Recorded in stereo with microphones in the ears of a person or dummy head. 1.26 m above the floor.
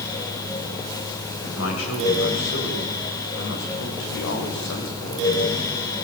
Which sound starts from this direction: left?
A man speaking, at 1.4 s.